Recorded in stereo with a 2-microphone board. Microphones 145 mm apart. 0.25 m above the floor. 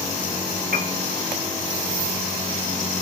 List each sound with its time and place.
0.7 s a piano: 85° right, 0.8 m